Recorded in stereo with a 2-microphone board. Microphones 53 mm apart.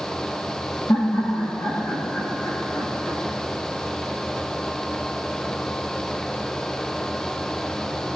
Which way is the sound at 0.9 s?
60° left (ahead or behind).